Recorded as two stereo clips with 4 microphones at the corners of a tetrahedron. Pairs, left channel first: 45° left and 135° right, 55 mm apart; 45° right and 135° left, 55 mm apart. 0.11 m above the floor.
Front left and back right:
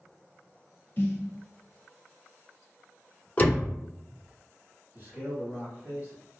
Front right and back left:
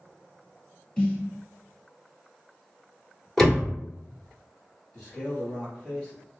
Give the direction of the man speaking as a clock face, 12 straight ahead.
4 o'clock.